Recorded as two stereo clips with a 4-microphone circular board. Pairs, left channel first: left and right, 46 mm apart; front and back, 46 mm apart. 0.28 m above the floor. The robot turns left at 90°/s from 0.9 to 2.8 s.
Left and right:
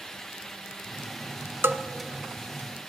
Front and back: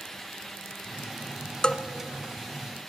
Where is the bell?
65° right, 0.9 m; by 1.8 s 85° right, 0.9 m.